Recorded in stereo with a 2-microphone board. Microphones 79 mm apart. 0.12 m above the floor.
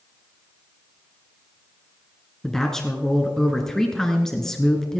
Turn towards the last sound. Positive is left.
turn(degrees=5)  # may be behind; listen again after turning